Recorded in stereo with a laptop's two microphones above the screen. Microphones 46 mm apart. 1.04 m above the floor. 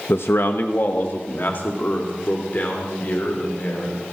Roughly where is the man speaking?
Left.